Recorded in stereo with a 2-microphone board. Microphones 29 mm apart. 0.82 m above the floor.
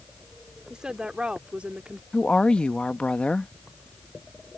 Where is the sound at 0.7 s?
25° right (ahead or behind); by 2.0 s 50° right (ahead or behind).